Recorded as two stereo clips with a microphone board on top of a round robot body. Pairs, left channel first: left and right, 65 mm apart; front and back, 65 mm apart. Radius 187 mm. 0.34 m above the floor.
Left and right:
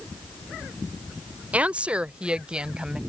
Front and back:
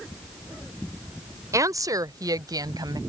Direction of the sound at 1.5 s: 155° right.